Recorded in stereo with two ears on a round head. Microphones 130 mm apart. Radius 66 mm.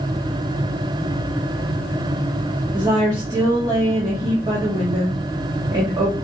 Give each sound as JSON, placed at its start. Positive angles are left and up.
{"t": 2.7, "sound": "a woman speaking", "side_deg": -30, "distance_m": 1.3}